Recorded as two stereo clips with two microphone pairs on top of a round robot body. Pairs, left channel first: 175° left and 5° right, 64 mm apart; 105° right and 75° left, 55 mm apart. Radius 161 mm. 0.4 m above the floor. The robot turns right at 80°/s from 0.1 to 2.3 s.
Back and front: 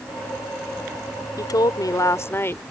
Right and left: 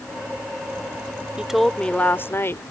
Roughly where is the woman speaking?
Behind left.